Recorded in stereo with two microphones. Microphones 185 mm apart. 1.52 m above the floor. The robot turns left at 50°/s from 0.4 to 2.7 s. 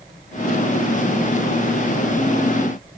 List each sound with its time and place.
Only background noise.